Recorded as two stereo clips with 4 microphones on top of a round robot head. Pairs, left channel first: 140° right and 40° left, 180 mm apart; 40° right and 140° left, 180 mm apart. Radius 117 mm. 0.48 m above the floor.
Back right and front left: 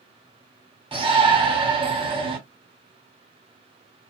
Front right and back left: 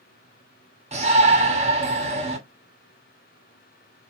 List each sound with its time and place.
0.9 s a shout: 95° left, 1.8 m